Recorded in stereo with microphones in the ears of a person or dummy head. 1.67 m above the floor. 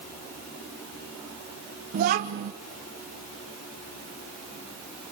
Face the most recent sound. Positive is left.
turn(degrees=-40)  # may be behind; listen again after turning